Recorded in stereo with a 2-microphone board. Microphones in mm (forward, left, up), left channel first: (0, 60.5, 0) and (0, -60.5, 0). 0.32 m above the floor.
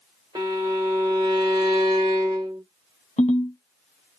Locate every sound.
0.3 s a violin: 35° right (ahead or behind), 1.2 m
3.2 s a ringtone: 75° left (ahead or behind), 0.8 m